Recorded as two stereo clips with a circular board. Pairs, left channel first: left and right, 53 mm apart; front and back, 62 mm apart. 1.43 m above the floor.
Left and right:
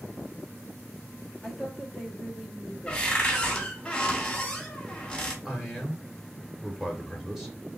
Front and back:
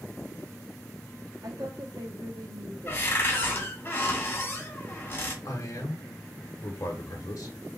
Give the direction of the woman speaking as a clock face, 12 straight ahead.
6 o'clock.